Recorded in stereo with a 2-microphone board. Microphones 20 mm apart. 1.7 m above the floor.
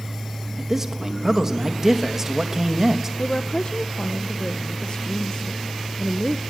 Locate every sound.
0.6 s a man speaking: 20° right (ahead or behind), 3 m
3.2 s a woman speaking: 55° left (ahead or behind), 1.0 m